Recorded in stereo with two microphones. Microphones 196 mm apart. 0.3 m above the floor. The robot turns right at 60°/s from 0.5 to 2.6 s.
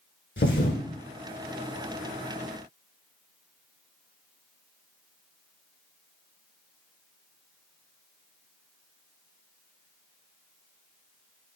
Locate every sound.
0.4 s a thud: 70° left (ahead or behind), 1.0 m; by 0.8 s 50° left (ahead or behind), 1.0 m